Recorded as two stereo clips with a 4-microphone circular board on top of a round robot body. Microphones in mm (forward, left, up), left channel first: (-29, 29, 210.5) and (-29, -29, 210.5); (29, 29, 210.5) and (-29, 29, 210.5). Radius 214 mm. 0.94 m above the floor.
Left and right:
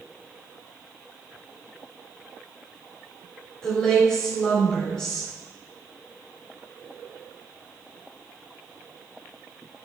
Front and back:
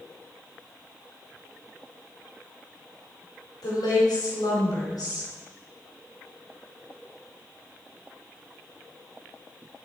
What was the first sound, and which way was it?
A woman speaking, 10° left.